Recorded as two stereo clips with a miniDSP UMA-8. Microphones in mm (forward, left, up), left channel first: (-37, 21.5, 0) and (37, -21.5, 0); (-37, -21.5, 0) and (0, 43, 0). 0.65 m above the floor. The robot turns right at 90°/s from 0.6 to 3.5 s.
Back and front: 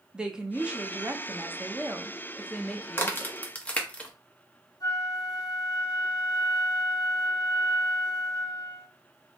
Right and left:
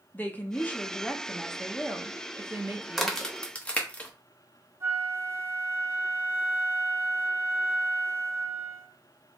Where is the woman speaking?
100° right, 0.7 m; by 3.4 s 150° left, 0.7 m.